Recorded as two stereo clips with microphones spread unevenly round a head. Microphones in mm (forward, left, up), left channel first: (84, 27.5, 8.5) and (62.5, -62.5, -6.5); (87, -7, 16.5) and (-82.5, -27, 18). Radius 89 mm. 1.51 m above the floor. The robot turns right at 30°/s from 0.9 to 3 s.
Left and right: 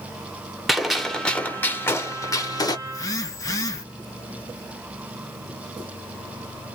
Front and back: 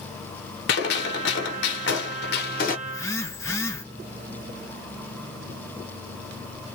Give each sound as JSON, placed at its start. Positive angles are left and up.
{"t": 0.7, "sound": "a gunshot", "azimuth_deg": -10, "distance_m": 0.9}
{"t": 2.9, "sound": "a phone buzzing", "azimuth_deg": 70, "distance_m": 0.8}